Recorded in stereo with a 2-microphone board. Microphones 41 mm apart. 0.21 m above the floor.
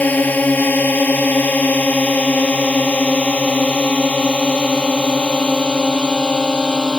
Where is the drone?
40° left (ahead or behind); by 7.0 s 20° left (ahead or behind).